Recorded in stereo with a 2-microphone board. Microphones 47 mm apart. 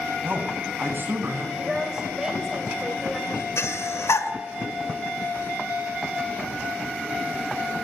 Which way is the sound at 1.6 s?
15° right (ahead or behind).